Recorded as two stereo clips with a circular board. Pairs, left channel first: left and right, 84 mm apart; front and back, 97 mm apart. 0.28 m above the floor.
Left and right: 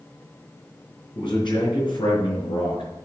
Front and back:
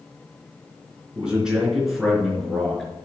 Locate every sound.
1.1 s a man speaking: 100° left, 4 m; by 2.9 s 85° left, 5 m